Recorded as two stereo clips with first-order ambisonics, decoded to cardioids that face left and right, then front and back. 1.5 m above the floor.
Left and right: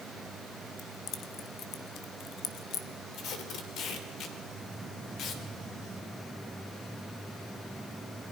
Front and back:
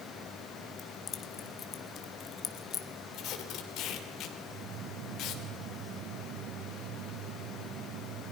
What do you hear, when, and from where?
0.8 s keys jangling: 50° left, 1.1 m
3.1 s tape being pulled: 40° left, 2.5 m